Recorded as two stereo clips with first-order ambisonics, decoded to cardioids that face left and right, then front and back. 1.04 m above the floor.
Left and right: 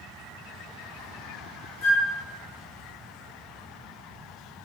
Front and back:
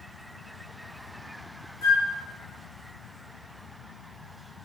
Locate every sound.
1.8 s a flute: 45° left, 1.1 m